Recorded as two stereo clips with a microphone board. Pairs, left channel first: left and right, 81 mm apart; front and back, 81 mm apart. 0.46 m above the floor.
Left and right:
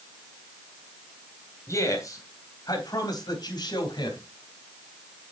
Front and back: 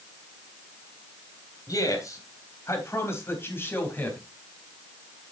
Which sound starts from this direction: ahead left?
A man speaking, at 1.7 s.